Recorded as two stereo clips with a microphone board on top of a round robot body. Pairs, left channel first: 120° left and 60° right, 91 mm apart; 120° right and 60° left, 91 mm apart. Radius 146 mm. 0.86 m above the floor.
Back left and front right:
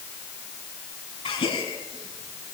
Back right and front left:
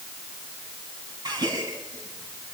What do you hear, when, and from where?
1.2 s a gasp: 105° left, 5.5 m